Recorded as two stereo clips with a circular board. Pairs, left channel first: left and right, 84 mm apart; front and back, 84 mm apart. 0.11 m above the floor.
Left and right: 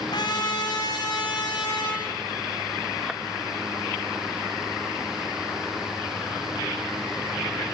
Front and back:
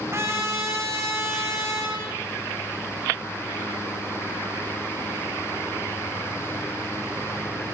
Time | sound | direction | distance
0.1 | a trumpet | 120° left | 5 m